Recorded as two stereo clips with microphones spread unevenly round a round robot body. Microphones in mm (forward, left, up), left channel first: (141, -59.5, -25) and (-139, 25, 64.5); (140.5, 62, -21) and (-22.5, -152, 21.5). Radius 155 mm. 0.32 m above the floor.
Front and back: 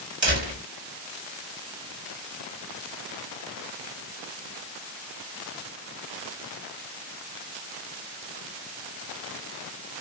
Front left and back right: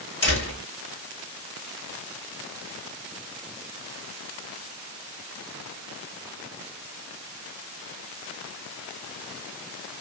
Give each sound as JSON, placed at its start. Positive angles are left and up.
{"t": 0.2, "sound": "a door slam", "azimuth_deg": 100, "distance_m": 2.5}